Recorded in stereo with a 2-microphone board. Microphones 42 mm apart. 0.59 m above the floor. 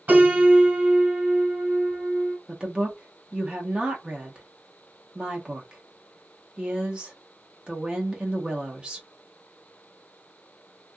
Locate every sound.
0.1 s a piano: 45° right (ahead or behind), 1.3 m
2.5 s a woman speaking: 25° right (ahead or behind), 0.9 m